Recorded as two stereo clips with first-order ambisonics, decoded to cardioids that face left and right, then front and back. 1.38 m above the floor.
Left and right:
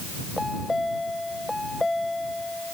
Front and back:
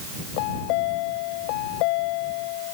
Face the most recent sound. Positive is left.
turn(degrees=5)